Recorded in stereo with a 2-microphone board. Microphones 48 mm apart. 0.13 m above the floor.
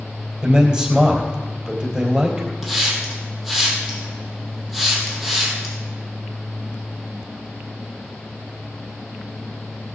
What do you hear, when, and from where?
0.4 s a man speaking: 20° right (ahead or behind), 3 m
2.6 s a hiss: centre (ahead or behind), 3.5 m